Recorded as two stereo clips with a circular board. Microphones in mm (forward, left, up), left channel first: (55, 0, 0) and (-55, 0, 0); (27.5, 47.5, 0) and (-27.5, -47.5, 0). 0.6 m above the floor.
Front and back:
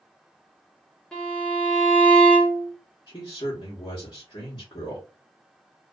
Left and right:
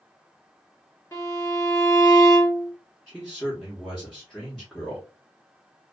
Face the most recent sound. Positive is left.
turn(degrees=-25)